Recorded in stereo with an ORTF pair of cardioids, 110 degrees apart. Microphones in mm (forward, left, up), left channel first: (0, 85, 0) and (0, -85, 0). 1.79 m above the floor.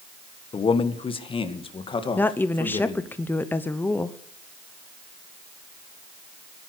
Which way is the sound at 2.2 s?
10° left.